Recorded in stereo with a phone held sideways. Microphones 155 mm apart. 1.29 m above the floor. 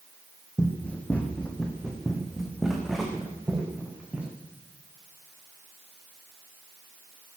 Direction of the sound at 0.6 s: 10° left (ahead or behind).